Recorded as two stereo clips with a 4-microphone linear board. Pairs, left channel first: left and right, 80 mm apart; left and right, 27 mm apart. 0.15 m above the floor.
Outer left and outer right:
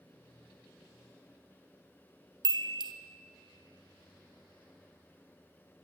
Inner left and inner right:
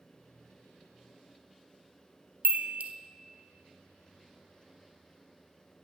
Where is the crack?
No crack in this recording.